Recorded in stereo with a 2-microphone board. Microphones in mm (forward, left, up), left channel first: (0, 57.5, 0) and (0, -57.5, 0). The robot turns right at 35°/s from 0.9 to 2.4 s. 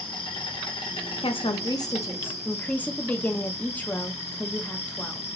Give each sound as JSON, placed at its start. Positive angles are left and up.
{"t": 0.0, "sound": "an insect", "azimuth_deg": 50, "distance_m": 1.3}
{"t": 1.2, "sound": "a woman speaking", "azimuth_deg": 125, "distance_m": 0.7}